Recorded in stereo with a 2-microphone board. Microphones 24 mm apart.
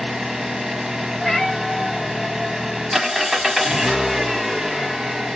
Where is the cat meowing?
10° left (ahead or behind), 1.7 m.